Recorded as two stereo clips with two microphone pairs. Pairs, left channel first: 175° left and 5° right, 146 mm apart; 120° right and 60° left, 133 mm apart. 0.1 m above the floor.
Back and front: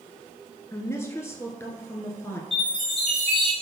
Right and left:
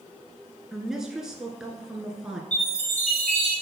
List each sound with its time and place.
0.7 s a woman speaking: 145° left, 1.1 m
2.5 s a chime: 135° right, 3 m